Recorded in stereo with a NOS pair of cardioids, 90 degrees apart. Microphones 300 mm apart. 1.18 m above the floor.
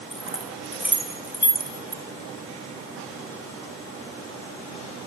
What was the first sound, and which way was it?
Keys jangling, straight ahead.